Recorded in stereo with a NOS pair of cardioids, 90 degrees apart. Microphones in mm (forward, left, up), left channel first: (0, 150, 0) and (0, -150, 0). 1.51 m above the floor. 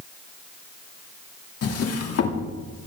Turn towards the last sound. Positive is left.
turn(degrees=55)